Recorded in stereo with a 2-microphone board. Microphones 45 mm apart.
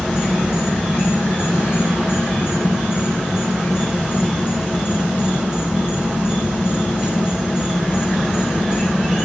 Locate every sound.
0.0 s an insect: 10° right (ahead or behind), 1.1 m